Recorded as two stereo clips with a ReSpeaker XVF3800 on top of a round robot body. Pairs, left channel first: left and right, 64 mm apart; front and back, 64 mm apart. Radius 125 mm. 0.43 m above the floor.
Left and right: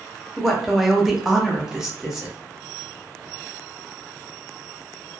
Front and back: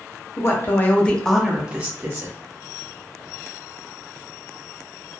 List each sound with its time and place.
0.4 s a woman speaking: straight ahead, 1.1 m; by 2.4 s 165° right, 1.1 m